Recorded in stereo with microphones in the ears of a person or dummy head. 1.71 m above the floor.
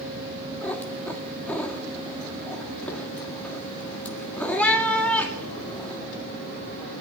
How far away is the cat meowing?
About 2 m.